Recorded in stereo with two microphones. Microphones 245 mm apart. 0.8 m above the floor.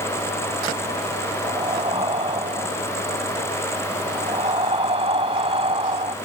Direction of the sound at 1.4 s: 25° right (ahead or behind).